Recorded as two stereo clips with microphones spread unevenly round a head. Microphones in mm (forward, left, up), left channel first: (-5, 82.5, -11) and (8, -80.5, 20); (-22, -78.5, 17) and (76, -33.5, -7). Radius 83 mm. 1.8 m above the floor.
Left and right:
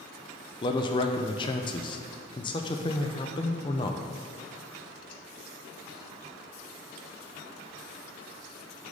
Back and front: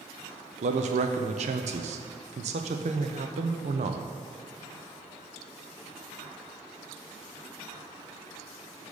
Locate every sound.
0.6 s a man speaking: 30° left, 0.6 m